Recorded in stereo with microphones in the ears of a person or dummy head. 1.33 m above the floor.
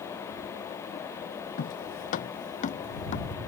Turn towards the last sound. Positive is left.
turn(degrees=45)  # may be behind; listen again after turning